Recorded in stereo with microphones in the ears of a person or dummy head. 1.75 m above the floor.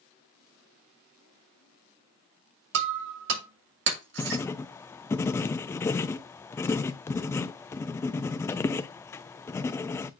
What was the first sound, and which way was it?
Breaking glass, 70° right (ahead or behind).